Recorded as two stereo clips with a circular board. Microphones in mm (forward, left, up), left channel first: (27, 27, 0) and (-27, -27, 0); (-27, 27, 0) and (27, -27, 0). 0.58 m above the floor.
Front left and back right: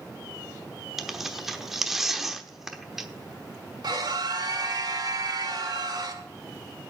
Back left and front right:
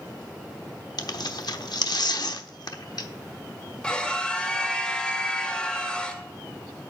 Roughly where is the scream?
Behind right.